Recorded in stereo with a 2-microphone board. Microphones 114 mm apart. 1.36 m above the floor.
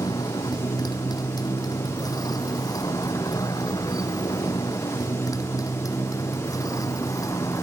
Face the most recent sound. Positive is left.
turn(degrees=30)  # may be behind; listen again after turning